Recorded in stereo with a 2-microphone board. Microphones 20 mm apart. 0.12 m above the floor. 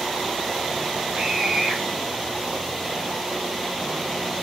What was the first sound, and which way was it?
A scream, 35° right (ahead or behind).